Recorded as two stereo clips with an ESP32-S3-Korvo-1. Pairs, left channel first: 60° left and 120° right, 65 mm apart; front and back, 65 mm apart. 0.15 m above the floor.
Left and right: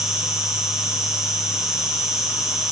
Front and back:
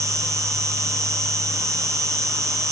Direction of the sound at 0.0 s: 160° left.